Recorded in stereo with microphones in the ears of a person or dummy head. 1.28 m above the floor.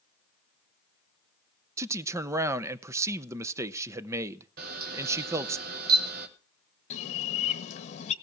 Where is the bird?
40° left (ahead or behind), 1.5 m.